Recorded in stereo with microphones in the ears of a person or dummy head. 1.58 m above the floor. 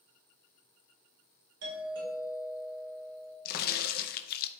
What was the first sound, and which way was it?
A doorbell, 60° right (ahead or behind).